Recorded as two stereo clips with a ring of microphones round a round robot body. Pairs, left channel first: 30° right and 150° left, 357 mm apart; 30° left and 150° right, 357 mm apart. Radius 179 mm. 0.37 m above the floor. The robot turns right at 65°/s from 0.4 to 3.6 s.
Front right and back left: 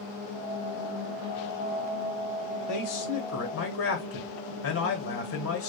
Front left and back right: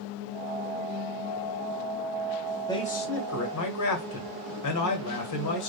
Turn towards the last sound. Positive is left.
turn(degrees=10)